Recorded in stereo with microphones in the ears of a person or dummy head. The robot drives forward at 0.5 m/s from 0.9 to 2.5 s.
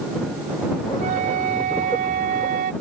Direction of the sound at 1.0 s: 40° right (ahead or behind).